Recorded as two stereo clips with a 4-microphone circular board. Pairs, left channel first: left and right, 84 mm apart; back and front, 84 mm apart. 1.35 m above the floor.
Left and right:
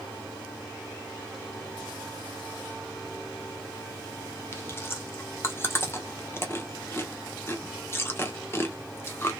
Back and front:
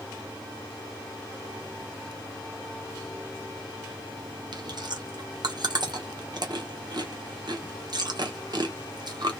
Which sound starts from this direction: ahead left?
Chewing, at 4.5 s.